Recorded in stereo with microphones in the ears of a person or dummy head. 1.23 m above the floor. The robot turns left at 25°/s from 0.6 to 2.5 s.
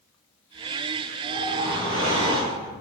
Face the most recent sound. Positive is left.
turn(degrees=-155)